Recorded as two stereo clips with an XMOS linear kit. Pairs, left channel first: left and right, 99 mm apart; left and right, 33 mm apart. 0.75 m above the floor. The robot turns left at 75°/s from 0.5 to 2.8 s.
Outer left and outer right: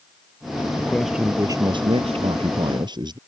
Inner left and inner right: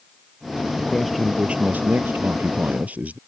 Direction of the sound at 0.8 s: 20° left.